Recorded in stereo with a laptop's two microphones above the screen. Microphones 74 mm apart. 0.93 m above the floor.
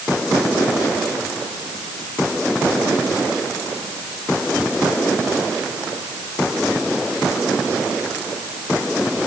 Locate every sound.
Only background noise.